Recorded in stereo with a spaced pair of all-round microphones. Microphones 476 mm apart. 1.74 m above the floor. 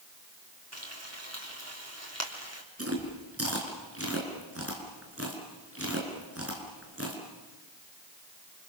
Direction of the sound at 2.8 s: 30° right (ahead or behind).